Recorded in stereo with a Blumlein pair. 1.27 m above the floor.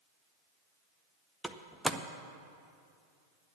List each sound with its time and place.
1.4 s a door slam: straight ahead, 0.6 m